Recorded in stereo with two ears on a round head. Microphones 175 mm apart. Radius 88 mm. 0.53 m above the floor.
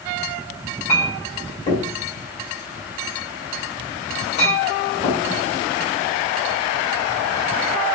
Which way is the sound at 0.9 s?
35° left (ahead or behind).